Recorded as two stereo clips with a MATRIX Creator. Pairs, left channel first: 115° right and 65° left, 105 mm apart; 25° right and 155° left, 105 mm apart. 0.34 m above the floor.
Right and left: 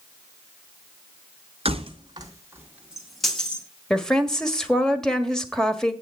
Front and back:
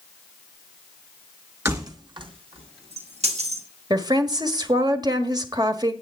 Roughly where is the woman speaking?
Behind.